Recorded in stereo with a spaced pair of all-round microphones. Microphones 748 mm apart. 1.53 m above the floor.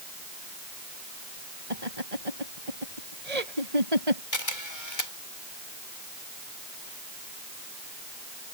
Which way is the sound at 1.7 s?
55° right (ahead or behind).